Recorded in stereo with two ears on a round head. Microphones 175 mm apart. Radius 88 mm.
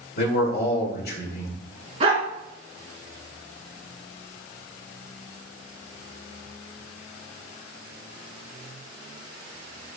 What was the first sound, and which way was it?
A man speaking, 50° left (ahead or behind).